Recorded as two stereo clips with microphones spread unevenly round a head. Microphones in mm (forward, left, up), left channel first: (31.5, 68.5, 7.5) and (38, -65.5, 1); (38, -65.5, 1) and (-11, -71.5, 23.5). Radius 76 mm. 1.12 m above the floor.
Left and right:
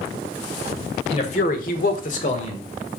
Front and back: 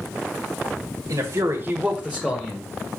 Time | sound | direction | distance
1.1 | a man speaking | 145° left | 1.6 m